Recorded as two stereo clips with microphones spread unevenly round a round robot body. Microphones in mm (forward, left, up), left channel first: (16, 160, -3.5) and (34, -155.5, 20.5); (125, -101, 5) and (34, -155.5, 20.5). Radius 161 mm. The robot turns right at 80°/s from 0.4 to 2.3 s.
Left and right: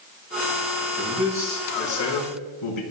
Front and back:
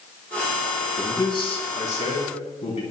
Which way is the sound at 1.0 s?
35° right.